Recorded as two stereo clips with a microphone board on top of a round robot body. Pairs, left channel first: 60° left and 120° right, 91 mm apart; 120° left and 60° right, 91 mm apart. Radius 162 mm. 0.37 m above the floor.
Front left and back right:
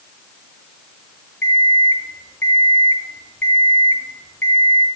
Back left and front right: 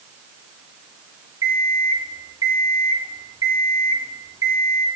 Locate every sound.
1.4 s an alarm clock: 10° right, 3 m